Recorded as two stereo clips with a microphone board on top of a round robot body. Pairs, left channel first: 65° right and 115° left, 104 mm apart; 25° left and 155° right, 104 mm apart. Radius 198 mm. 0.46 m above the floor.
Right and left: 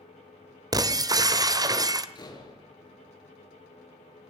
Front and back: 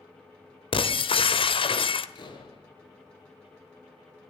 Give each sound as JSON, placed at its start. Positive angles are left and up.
{"t": 0.7, "sound": "breaking glass", "azimuth_deg": 60, "distance_m": 1.3}
{"t": 2.1, "sound": "a door slam", "azimuth_deg": -20, "distance_m": 7.0}